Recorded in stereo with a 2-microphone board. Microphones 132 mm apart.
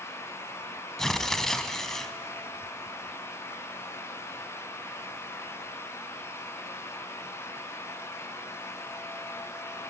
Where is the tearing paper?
5° left (ahead or behind), 1.0 m.